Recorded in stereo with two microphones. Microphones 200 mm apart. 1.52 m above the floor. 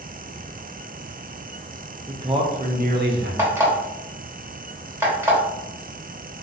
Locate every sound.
2.1 s a man speaking: 15° right (ahead or behind), 0.7 m; by 3.3 s 60° right (ahead or behind), 0.7 m
3.4 s an alarm clock: 15° right (ahead or behind), 1.2 m